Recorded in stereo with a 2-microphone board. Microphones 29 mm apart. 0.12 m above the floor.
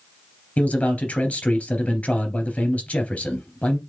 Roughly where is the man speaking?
Left.